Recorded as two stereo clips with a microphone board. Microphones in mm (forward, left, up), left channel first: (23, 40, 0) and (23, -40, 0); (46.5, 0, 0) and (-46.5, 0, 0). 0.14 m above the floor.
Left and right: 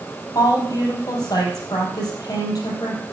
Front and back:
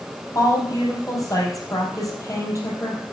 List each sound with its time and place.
0.3 s a woman speaking: 50° left, 3.5 m